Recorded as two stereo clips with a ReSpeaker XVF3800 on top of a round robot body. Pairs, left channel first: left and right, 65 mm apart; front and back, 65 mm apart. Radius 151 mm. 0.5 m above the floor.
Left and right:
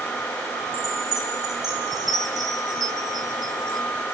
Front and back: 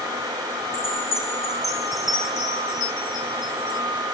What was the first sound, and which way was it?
A chime, 90° right.